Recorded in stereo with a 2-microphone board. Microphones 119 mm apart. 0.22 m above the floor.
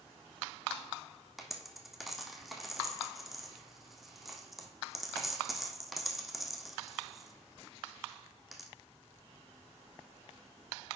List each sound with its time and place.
1.4 s a dropped coin: centre (ahead or behind), 1.0 m